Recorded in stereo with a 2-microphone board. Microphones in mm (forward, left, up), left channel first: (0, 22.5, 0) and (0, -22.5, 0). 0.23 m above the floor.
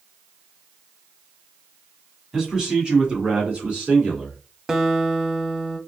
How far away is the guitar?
About 0.5 m.